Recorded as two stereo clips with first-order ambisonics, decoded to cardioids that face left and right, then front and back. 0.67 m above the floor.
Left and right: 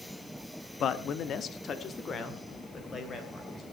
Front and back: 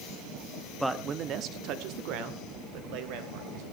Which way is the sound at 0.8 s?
90° left.